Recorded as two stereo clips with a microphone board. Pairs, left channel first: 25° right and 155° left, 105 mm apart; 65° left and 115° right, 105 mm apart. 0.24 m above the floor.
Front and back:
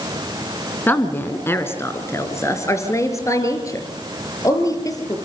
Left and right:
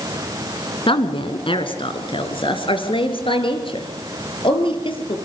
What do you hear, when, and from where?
0.9 s a woman speaking: 50° left, 2.5 m; by 5.2 s 35° left, 5.5 m